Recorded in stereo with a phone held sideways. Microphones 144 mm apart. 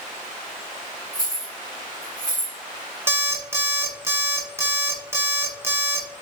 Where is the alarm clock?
15° right (ahead or behind), 0.8 m.